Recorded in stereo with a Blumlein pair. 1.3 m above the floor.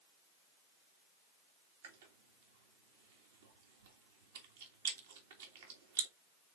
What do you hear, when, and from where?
1.8 s chewing: 60° right, 1.9 m